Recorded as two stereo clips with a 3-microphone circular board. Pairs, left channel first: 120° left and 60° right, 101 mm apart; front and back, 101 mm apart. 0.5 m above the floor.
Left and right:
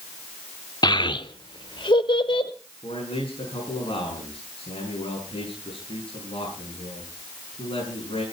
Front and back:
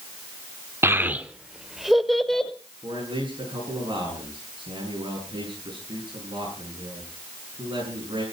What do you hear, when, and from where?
0.8 s a child speaking: 130° left, 0.8 m; by 2.5 s 85° left, 1.8 m
2.8 s a man speaking: 145° left, 6.5 m